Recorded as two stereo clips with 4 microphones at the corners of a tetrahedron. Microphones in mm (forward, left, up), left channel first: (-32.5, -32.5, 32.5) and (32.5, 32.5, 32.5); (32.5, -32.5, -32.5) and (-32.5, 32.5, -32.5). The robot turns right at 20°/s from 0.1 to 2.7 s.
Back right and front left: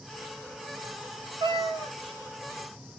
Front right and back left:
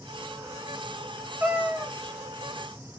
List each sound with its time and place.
1.4 s a cat meowing: 70° left, 0.9 m; by 1.9 s 80° left, 0.9 m